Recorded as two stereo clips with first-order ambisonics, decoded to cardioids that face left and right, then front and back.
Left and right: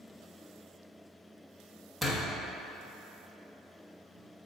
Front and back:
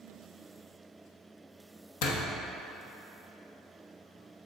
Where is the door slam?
Straight ahead, 1.1 m.